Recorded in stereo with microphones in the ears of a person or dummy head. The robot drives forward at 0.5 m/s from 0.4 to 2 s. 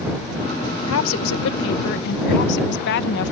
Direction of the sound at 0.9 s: 80° left.